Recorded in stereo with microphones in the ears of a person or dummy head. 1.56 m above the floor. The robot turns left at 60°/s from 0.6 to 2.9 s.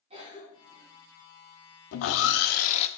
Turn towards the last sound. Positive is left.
turn(degrees=30)